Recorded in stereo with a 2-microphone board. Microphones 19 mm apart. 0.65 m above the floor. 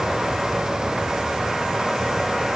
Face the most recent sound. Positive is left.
No sound to turn to.